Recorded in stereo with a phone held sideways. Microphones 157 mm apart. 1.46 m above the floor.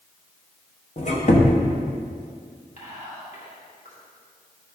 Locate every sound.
1.0 s a squeak: 50° left (ahead or behind), 1.1 m
2.8 s whispering: 50° left (ahead or behind), 2.5 m